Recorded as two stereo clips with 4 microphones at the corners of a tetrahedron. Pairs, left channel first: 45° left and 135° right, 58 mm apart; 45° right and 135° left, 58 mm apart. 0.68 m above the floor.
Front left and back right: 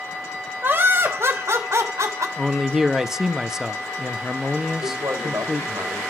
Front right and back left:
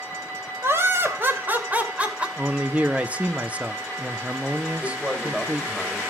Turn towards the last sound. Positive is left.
turn(degrees=-140)